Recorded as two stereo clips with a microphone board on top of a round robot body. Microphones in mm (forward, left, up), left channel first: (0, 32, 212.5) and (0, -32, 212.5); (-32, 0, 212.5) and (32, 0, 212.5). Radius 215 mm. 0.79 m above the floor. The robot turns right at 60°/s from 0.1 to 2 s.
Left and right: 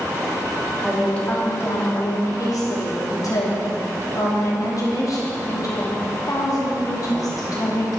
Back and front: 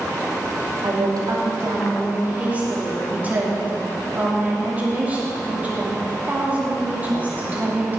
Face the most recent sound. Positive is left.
turn(degrees=65)